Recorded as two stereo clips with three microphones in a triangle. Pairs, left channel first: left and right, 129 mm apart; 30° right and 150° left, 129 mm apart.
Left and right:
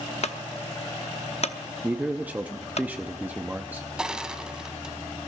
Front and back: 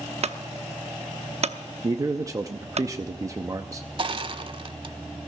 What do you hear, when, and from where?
0.2 s a clunk: 120° left, 0.9 m
1.8 s a man speaking: 160° right, 0.7 m
4.0 s crushing: 170° right, 0.9 m